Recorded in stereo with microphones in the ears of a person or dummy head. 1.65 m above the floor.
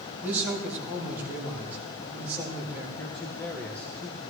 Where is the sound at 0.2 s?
10° right (ahead or behind), 3.5 m.